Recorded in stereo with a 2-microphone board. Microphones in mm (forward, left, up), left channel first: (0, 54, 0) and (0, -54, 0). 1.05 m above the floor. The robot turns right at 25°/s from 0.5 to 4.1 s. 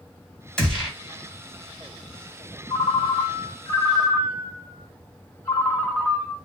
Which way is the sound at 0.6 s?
10° left (ahead or behind).